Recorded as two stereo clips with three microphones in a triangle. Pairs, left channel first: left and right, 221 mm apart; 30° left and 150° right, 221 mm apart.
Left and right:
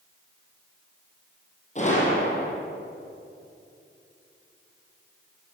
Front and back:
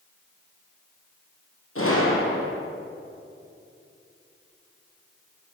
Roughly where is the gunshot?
Ahead left.